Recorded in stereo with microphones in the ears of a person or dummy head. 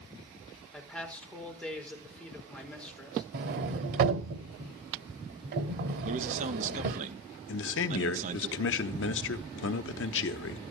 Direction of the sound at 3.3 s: 40° right (ahead or behind).